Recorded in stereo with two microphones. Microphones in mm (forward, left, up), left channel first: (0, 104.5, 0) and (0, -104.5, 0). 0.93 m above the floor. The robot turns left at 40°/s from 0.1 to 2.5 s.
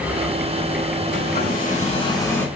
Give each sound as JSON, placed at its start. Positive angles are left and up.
{"t": 1.1, "sound": "a hair dryer", "azimuth_deg": 60, "distance_m": 4.0}